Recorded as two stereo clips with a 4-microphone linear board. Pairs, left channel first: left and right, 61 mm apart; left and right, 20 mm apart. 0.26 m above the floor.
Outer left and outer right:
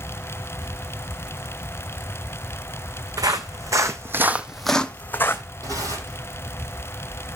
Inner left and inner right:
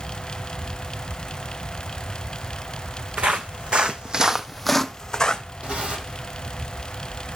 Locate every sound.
3.2 s footsteps: 75° right (ahead or behind), 1.1 m; by 5.4 s 40° left (ahead or behind), 0.9 m
5.6 s tearing paper: 80° right, 9 m